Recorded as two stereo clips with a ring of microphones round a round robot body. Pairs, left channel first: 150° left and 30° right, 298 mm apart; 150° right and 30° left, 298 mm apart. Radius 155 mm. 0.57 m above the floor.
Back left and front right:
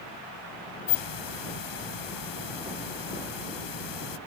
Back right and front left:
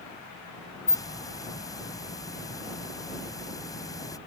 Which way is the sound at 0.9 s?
130° left.